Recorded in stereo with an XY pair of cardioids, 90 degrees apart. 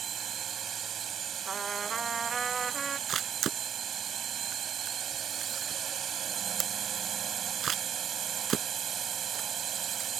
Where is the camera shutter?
65° right.